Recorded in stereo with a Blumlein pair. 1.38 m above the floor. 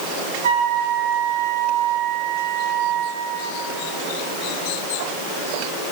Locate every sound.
0.4 s a flute: 60° right, 1.3 m